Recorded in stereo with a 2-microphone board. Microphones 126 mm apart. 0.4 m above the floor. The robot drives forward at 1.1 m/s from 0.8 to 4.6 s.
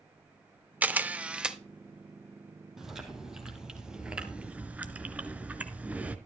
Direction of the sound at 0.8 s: 10° right (ahead or behind).